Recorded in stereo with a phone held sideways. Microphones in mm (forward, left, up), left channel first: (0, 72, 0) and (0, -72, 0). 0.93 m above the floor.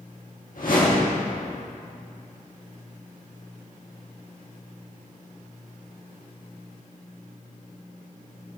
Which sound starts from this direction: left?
A whoosh, at 0.6 s.